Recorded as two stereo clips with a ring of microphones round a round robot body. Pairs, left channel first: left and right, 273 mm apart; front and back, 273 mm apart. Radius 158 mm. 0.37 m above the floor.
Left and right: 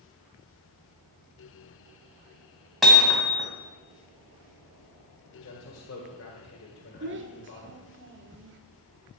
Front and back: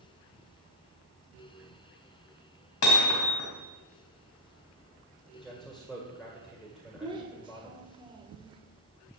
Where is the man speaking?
90° left, 2 m.